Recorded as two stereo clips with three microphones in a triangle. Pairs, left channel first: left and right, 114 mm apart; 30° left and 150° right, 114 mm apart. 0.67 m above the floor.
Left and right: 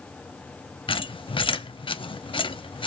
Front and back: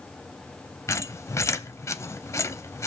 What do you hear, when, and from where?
0.9 s a squeak: 85° left, 0.6 m